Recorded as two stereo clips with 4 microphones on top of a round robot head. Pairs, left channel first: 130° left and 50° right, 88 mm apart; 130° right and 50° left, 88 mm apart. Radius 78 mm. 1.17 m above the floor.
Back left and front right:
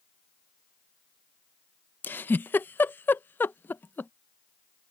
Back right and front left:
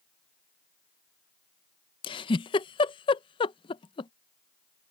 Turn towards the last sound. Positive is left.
turn(degrees=-160)